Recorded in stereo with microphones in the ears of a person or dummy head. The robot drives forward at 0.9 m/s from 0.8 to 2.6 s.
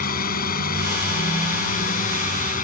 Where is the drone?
45° left (ahead or behind).